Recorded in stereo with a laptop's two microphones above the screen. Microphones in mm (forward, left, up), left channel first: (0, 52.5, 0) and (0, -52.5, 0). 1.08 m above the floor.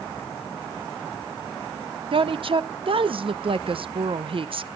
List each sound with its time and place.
2.1 s a woman speaking: 55° right (ahead or behind), 0.7 m